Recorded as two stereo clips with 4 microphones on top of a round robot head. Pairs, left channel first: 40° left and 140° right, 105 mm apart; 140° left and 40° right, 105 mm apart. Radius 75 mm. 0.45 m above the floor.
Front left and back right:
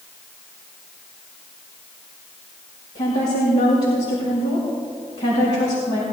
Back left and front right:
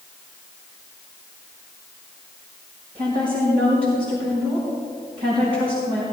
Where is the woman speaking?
10° right, 5 m.